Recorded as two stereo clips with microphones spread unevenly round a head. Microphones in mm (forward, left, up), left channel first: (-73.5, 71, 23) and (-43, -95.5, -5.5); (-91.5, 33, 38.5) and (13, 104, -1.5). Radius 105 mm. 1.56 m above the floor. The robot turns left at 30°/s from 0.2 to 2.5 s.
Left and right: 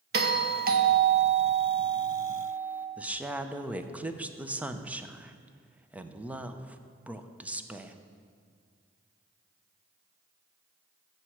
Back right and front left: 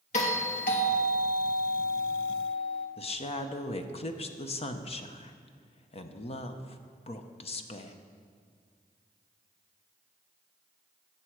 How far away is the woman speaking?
About 0.8 m.